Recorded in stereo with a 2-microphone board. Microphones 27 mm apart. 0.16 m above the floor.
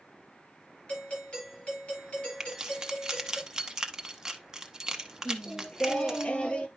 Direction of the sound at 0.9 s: 40° left (ahead or behind).